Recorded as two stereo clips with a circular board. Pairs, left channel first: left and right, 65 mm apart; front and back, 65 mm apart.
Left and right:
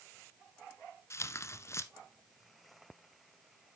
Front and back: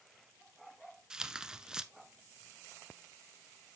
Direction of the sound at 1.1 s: 105° left.